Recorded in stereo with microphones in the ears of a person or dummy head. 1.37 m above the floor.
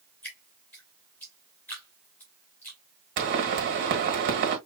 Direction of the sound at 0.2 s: 10° left (ahead or behind).